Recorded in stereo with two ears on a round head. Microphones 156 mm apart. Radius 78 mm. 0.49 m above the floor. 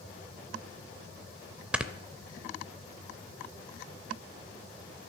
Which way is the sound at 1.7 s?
5° right (ahead or behind).